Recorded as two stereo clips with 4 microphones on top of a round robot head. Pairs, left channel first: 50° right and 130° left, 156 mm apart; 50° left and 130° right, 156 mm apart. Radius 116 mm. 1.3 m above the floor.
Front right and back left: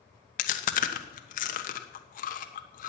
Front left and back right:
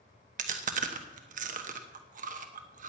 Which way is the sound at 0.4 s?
85° right.